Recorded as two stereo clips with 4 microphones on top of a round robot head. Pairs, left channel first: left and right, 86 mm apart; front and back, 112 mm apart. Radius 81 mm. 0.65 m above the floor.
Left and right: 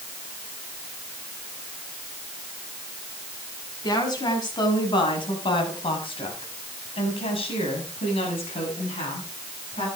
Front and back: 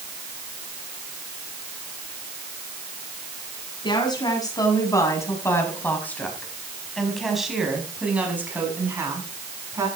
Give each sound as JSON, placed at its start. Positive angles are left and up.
{"t": 3.8, "sound": "a woman speaking", "azimuth_deg": 50, "distance_m": 6.5}